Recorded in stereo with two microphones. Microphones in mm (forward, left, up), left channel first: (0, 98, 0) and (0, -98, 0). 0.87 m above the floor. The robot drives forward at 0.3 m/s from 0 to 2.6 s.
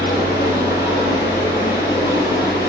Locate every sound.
0.0 s running water: 50° left (ahead or behind), 7.5 m; by 2.7 s 55° left (ahead or behind), 7 m